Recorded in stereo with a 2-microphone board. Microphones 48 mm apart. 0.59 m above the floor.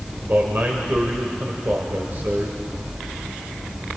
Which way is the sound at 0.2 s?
45° right (ahead or behind).